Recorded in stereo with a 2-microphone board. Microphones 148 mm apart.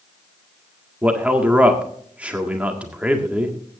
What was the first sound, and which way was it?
A man speaking, 10° right (ahead or behind).